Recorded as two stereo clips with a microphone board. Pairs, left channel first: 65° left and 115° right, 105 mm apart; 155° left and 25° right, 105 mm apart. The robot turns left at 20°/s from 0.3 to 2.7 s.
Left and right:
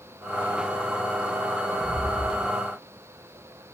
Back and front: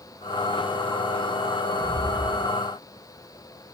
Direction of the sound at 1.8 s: 55° right.